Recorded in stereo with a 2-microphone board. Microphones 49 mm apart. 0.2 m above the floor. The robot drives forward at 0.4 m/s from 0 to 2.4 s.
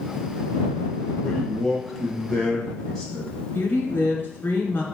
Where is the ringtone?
I don't hear a ringtone.